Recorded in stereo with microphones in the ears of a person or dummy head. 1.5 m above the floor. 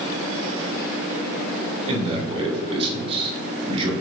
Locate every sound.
1.9 s a man speaking: 30° right (ahead or behind), 2.5 m